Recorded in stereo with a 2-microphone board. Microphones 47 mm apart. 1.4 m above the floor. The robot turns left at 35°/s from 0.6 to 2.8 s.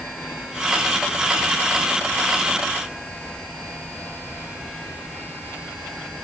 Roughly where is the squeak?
I don't hear a squeak.